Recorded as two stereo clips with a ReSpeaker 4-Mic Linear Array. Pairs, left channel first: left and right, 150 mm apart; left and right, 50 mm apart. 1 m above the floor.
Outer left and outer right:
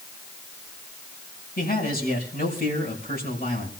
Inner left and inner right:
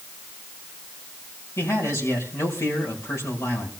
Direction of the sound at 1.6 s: 80° left.